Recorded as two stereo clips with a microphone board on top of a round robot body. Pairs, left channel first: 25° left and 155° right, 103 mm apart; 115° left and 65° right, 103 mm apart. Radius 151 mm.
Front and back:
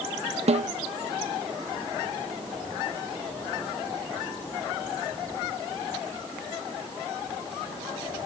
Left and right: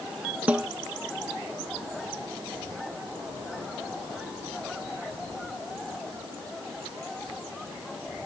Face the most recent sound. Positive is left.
turn(degrees=-145)